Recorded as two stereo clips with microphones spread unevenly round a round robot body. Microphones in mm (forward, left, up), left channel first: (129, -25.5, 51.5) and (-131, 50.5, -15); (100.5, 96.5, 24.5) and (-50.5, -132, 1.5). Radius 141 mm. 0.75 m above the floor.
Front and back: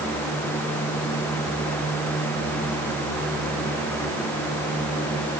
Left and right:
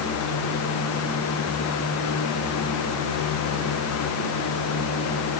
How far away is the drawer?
No drawer in this recording.